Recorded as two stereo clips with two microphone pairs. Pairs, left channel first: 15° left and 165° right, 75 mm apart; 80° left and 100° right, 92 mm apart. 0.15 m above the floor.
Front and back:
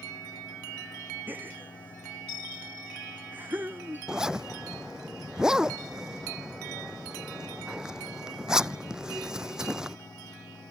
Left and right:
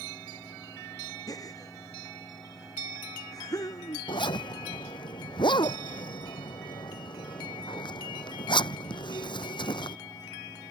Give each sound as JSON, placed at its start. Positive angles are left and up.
{"t": 1.3, "sound": "a gasp", "azimuth_deg": 130}
{"t": 4.1, "sound": "a zipper", "azimuth_deg": 115}